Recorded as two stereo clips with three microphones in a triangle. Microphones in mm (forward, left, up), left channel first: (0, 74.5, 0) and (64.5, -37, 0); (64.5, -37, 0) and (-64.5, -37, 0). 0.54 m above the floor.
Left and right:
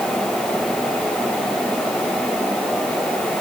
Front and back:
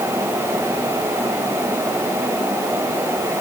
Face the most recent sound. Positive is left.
No sound to turn to.